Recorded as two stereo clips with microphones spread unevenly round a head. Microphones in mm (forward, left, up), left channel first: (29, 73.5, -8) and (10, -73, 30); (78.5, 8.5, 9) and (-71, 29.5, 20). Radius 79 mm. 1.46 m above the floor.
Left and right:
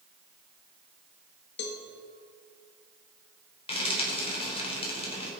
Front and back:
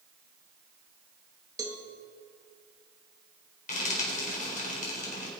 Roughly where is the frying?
Ahead left.